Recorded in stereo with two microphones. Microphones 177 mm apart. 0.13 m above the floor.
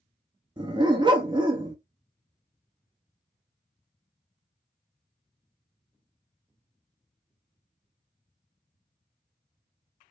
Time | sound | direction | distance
0.6 | a dog barking | 25° right (ahead or behind) | 0.7 m